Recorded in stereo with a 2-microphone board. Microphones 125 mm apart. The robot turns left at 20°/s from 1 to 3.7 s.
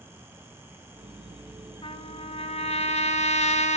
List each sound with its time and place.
1.8 s a trumpet: 125° left, 1.0 m; by 3.8 s 85° left, 1.0 m